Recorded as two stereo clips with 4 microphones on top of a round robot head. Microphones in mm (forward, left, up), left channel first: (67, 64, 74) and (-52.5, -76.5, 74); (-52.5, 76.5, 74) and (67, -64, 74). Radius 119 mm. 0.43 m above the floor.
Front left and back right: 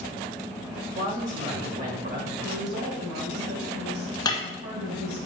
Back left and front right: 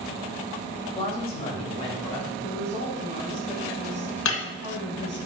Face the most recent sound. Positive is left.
turn(degrees=120)